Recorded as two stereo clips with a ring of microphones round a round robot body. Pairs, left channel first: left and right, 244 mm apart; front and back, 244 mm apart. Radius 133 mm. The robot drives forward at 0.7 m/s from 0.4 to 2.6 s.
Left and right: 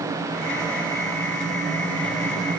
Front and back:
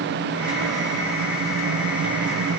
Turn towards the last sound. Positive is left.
No sound to turn to.